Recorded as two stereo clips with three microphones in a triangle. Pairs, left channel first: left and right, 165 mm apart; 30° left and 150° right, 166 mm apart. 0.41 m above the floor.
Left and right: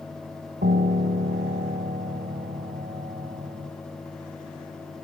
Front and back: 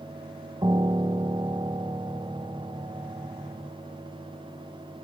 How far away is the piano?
About 1.0 m.